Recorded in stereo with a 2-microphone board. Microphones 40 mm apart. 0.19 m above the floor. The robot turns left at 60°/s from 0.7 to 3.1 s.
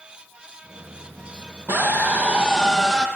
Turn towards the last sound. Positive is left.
turn(degrees=155)